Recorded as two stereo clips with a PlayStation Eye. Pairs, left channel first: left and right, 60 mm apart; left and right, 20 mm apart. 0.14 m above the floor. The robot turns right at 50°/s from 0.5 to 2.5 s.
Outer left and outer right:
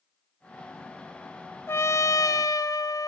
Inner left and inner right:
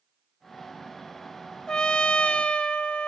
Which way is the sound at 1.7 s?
45° left.